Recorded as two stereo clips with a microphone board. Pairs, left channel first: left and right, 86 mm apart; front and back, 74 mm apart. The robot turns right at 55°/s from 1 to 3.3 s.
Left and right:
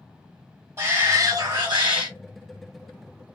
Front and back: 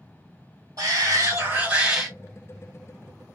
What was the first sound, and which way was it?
A shout, 150° right.